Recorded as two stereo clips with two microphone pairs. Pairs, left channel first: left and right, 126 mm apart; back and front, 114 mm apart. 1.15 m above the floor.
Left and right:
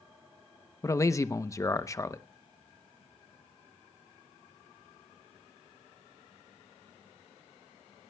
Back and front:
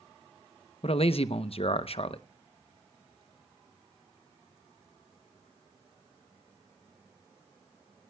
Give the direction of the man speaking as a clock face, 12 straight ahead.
7 o'clock.